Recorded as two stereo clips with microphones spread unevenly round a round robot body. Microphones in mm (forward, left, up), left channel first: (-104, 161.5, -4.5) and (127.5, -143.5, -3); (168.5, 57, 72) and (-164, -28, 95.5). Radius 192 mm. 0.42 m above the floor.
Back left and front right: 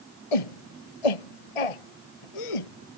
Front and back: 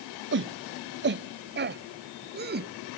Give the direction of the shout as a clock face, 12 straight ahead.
7 o'clock.